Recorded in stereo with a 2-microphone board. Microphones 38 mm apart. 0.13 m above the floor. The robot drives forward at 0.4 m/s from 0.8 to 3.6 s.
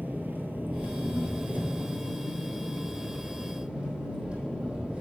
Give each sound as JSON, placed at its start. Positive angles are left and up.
{"t": 0.0, "sound": "an engine running", "side_deg": -60, "distance_m": 1.0}